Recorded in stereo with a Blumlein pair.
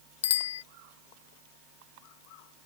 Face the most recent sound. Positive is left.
turn(degrees=60)